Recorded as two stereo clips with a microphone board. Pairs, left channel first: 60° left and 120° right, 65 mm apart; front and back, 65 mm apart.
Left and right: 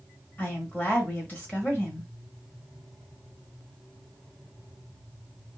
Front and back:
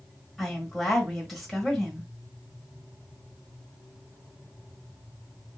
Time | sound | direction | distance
0.4 | a woman speaking | 90° left | 1.6 m